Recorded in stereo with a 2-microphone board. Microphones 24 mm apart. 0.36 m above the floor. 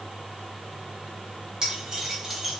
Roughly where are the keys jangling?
Right.